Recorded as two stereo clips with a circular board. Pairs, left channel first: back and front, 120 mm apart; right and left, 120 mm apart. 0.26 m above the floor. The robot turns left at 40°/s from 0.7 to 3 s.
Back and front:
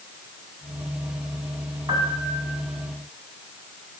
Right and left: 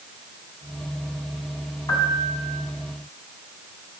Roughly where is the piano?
Ahead right.